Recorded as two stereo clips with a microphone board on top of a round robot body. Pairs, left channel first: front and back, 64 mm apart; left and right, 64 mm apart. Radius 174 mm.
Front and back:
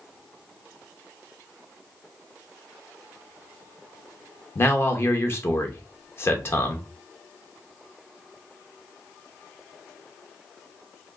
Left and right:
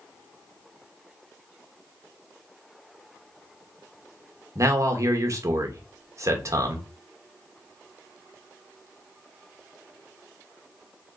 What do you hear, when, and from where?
4.5 s a man speaking: 50° right, 1.0 m